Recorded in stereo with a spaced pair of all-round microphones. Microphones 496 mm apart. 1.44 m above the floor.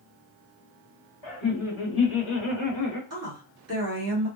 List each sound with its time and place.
1.2 s laughter: 60° left (ahead or behind), 1.3 m; by 3.0 s 40° left (ahead or behind), 0.8 m
3.1 s a woman speaking: 30° right (ahead or behind), 1.5 m